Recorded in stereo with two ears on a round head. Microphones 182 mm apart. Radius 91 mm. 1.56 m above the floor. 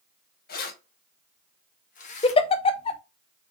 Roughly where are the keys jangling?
Left.